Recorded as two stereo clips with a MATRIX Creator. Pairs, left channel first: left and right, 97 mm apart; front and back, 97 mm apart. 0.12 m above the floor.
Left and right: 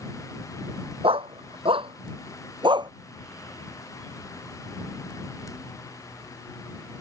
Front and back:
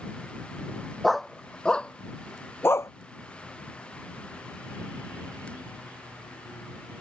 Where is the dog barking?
90° right; by 2.9 s 55° right.